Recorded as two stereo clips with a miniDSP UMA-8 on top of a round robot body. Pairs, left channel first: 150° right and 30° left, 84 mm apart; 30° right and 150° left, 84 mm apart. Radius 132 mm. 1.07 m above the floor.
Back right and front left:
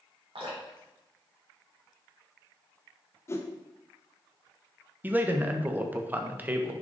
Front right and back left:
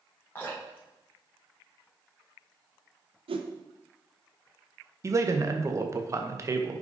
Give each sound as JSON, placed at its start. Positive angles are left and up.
{"t": 0.3, "sound": "dripping", "azimuth_deg": 40, "distance_m": 4.0}
{"t": 3.3, "sound": "a whoosh", "azimuth_deg": 150, "distance_m": 1.0}
{"t": 5.0, "sound": "a man speaking", "azimuth_deg": 100, "distance_m": 1.3}